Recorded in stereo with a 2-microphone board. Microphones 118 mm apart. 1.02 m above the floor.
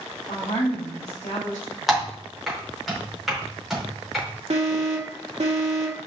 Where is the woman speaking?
75° left (ahead or behind), 5 m.